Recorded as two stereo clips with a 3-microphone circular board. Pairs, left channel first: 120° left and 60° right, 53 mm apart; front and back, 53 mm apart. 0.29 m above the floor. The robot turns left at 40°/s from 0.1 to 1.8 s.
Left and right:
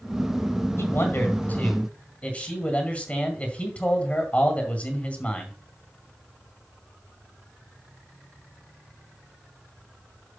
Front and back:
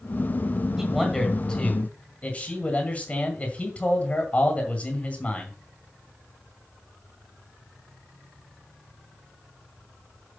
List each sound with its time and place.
0.8 s a man speaking: 105° left, 2 m; by 5.5 s 65° left, 2 m